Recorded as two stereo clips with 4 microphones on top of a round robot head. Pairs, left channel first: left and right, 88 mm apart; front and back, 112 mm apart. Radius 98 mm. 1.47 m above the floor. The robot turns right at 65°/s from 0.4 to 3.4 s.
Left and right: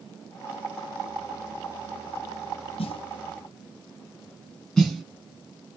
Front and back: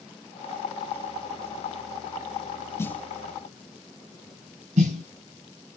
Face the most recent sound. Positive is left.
turn(degrees=175)